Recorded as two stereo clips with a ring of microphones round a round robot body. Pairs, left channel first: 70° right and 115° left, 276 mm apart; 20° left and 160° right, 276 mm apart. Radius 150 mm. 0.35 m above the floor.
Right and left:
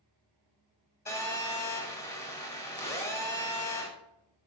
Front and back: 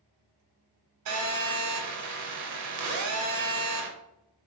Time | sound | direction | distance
1.1 | a phone buzzing | 145° right | 0.8 m